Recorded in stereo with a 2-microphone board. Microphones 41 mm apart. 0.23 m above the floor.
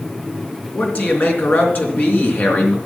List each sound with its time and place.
0.7 s a man speaking: 55° left (ahead or behind), 3.5 m